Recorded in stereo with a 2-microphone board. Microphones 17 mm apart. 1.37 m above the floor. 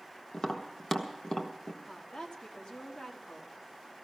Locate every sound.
0.3 s tapping: 40° left (ahead or behind), 1.3 m
1.9 s a woman speaking: 85° left, 2.5 m